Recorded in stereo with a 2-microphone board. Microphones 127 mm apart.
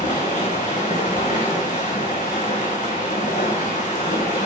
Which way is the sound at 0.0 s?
85° left.